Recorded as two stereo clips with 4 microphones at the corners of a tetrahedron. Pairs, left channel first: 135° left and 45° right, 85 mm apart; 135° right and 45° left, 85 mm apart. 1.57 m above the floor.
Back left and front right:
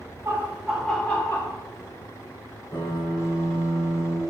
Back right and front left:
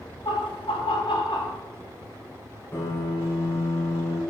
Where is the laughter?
105° right, 1.6 m; by 1.6 s 170° right, 2.0 m.